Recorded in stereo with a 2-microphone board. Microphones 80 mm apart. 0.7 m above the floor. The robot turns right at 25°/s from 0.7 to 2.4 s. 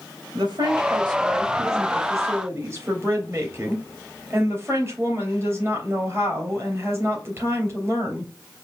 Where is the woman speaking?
75° right, 3 m; by 8.3 s 30° right, 3 m.